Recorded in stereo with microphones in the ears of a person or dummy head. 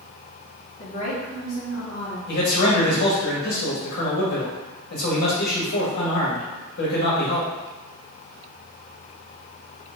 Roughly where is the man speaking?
Left.